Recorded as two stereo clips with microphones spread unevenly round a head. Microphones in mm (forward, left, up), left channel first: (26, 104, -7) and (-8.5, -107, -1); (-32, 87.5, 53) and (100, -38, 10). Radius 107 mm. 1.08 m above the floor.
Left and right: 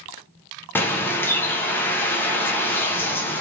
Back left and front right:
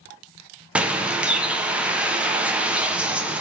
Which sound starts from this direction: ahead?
A bird, at 0.8 s.